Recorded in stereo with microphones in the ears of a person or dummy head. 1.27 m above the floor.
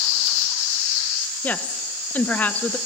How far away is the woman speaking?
About 1.2 m.